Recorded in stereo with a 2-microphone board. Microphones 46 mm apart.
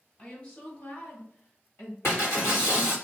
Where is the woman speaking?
30° left (ahead or behind), 1.5 m; by 1.9 s 50° left (ahead or behind), 1.8 m.